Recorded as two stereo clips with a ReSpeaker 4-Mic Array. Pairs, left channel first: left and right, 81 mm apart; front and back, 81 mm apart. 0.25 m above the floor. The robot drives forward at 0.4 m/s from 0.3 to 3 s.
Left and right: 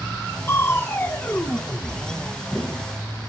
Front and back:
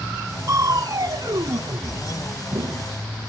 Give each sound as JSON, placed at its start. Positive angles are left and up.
{"t": 0.5, "sound": "crushing", "azimuth_deg": 145, "distance_m": 0.8}